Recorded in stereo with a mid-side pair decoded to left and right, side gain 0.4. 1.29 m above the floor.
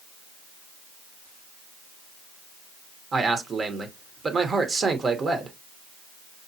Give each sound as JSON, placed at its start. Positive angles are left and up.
{"t": 3.1, "sound": "a man speaking", "azimuth_deg": -45, "distance_m": 1.0}